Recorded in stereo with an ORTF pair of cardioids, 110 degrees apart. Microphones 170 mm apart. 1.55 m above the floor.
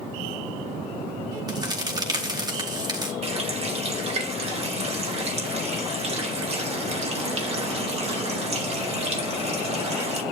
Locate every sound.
1.5 s a crack: 25° right, 4 m
3.2 s a running tap: 40° right, 4 m